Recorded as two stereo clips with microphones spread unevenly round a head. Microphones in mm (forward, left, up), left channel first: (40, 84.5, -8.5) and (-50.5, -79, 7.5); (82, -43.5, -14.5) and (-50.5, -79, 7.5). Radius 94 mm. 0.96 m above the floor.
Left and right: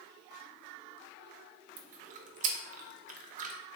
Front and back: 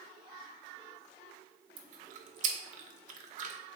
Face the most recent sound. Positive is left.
turn(degrees=-155)